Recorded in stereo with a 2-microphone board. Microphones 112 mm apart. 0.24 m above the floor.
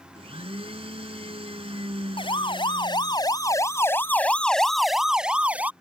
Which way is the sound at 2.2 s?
50° left (ahead or behind).